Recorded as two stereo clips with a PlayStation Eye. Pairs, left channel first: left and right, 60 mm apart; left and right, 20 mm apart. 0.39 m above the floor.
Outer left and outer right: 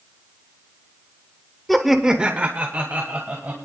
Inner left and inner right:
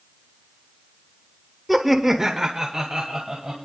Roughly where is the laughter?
Centre.